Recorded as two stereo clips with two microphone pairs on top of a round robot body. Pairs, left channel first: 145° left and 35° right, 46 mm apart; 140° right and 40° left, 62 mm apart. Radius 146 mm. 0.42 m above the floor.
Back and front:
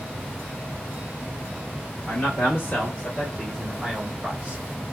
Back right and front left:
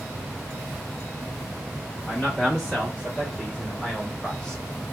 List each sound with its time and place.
2.1 s a man speaking: 135° left, 1.8 m; by 4.6 s 50° right, 1.5 m